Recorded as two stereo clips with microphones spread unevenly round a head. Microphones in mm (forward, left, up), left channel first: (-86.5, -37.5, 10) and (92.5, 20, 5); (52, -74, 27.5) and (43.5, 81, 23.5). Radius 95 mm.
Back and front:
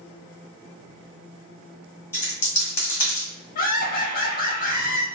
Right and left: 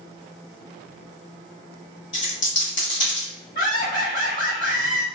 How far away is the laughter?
About 0.6 m.